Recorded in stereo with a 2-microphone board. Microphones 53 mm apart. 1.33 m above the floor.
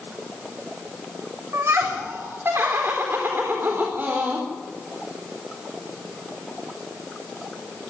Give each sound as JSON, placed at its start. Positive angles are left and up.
{"t": 1.5, "sound": "laughter", "side_deg": -55, "distance_m": 4.0}